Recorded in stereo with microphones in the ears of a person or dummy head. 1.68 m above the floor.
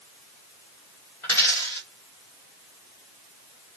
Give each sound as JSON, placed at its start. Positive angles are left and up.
{"t": 1.2, "sound": "a dropped coin", "side_deg": 10, "distance_m": 1.1}